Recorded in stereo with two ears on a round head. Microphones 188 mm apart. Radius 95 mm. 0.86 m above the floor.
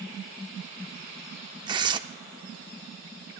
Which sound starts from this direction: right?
Tearing paper, at 1.7 s.